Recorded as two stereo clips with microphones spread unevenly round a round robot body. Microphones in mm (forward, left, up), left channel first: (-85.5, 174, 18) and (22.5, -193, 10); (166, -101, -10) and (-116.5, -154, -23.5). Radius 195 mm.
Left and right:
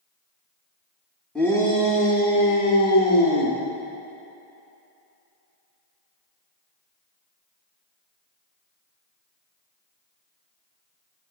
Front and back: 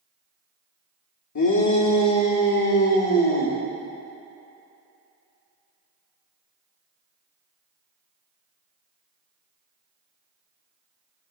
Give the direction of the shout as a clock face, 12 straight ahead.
11 o'clock.